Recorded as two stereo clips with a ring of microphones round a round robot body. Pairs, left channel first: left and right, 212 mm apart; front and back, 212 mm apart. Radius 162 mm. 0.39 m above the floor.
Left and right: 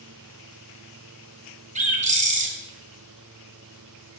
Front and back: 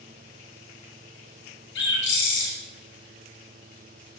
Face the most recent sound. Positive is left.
turn(degrees=-35)